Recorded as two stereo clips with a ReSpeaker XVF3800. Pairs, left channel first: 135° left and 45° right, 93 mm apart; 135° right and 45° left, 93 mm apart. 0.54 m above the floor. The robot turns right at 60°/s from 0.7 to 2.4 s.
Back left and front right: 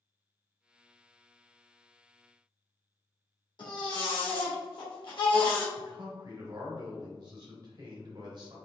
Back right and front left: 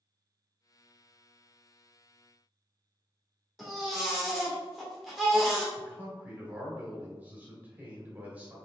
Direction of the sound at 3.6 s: 135° left.